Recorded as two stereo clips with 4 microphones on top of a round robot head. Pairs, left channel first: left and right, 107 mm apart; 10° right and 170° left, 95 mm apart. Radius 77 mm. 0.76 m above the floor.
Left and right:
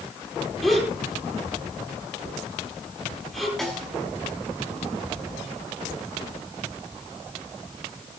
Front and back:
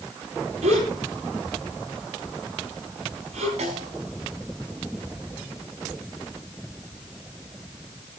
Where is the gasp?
Straight behind, 9 m.